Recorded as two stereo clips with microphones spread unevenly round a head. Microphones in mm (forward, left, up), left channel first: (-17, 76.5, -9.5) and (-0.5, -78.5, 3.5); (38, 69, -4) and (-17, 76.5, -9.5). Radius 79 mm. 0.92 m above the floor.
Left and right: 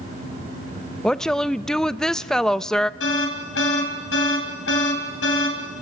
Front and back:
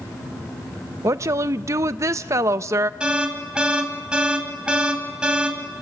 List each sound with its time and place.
0.0 s a fan: 30° right, 7 m
1.0 s a woman speaking: straight behind, 0.5 m
3.0 s an alarm: 100° left, 4 m